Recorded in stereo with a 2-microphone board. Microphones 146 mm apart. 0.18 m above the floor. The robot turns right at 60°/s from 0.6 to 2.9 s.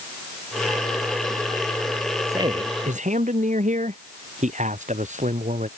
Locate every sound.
2.3 s a man speaking: 160° right; by 5.7 s 125° right